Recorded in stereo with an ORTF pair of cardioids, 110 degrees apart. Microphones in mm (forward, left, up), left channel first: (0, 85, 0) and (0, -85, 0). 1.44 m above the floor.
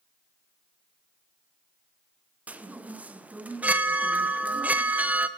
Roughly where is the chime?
Ahead.